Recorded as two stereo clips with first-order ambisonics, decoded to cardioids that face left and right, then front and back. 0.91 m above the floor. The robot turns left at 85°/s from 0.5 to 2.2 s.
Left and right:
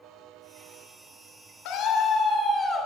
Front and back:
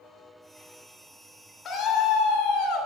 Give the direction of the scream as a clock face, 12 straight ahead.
10 o'clock.